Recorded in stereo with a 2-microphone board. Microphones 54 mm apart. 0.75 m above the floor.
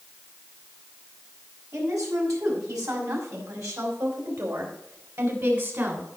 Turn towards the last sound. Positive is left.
turn(degrees=-50)  # may be behind; listen again after turning